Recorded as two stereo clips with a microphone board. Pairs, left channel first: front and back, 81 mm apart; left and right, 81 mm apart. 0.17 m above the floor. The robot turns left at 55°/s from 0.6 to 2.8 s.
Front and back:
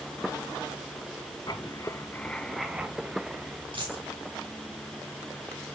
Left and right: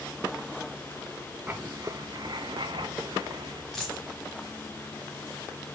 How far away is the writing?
About 0.5 m.